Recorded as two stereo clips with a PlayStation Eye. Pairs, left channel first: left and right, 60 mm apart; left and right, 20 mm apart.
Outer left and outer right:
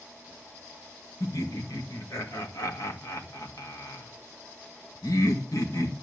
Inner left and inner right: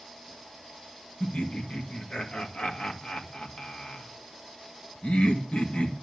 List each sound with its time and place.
1.2 s laughter: 85° left, 2 m